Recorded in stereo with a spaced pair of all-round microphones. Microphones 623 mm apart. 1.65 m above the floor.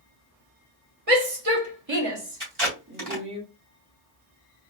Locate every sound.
1.1 s a shout: 65° right (ahead or behind), 1.4 m; by 3.4 s 5° right (ahead or behind), 1.4 m
2.4 s tape being pulled: 50° right (ahead or behind), 3 m